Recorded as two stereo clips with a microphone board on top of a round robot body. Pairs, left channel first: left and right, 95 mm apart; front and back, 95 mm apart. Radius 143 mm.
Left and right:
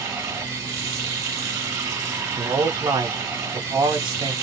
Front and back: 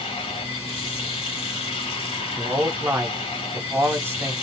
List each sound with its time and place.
0.0 s running water: 25° right, 0.7 m
2.4 s a man speaking: 120° right, 0.8 m